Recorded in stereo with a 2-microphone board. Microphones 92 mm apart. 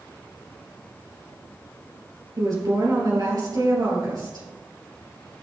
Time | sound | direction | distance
2.4 | a woman speaking | 50° right (ahead or behind) | 2.5 m